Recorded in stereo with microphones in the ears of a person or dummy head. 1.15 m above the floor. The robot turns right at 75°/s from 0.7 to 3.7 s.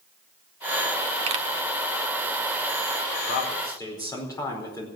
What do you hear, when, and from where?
1.3 s a pop: 40° right (ahead or behind), 0.9 m; by 1.4 s 30° right (ahead or behind), 0.9 m
3.3 s a man speaking: 130° left, 4.5 m; by 4.9 s 160° left, 4.5 m